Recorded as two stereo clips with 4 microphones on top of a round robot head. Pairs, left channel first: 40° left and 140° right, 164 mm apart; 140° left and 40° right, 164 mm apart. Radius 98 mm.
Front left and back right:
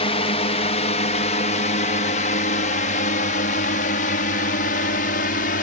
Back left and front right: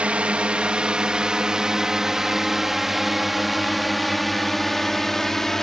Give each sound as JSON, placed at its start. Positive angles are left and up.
{"t": 0.0, "sound": "a drone", "azimuth_deg": 35}